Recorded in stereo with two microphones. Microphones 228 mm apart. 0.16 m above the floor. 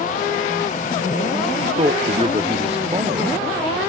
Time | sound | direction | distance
1.6 | a man speaking | 25° right (ahead or behind) | ?